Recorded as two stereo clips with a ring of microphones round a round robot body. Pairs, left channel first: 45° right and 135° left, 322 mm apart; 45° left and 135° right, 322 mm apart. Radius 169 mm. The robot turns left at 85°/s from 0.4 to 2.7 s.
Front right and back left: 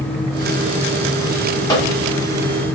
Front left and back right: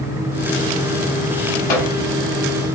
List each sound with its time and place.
1.7 s a microwave: 35° left, 1.6 m; by 1.9 s 15° left, 1.6 m